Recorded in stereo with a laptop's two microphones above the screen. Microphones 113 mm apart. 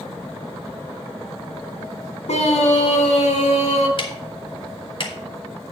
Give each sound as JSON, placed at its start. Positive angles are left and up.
{"t": 2.3, "sound": "a scream", "side_deg": 70, "distance_m": 1.6}
{"t": 4.0, "sound": "ticking", "side_deg": 45, "distance_m": 1.7}